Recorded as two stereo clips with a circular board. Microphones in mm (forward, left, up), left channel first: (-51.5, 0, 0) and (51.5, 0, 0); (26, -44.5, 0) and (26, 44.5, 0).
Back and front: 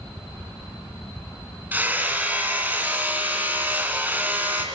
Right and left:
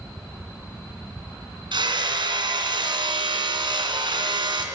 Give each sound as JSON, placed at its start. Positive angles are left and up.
{"t": 1.7, "sound": "hammering", "azimuth_deg": 70, "distance_m": 2.0}